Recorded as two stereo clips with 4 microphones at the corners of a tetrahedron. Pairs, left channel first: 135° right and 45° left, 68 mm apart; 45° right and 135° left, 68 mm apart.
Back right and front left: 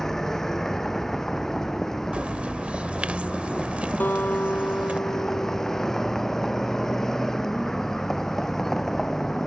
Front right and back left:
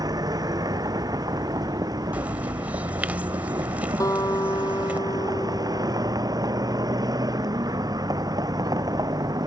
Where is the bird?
95° left.